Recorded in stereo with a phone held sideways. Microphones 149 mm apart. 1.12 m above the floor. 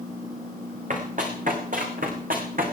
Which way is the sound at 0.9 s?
60° right (ahead or behind).